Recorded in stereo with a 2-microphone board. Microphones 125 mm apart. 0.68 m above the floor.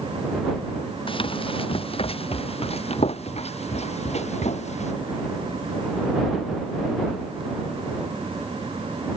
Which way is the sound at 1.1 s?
45° left (ahead or behind).